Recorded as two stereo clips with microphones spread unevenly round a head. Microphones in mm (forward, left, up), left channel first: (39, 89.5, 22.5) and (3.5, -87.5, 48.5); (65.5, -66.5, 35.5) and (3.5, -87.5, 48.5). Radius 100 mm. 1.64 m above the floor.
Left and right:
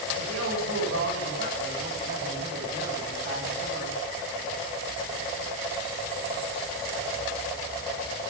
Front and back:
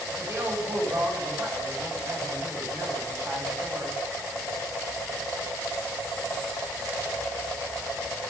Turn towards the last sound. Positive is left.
turn(degrees=-110)